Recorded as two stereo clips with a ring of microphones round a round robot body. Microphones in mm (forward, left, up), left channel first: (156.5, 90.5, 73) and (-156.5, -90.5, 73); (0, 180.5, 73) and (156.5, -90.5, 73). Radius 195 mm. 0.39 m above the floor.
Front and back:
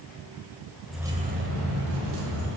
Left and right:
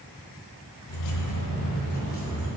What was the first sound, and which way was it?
Keys jangling, 115° left.